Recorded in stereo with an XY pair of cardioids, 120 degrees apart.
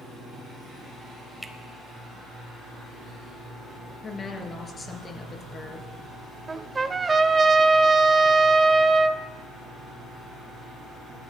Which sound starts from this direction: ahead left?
A woman speaking, at 4.0 s.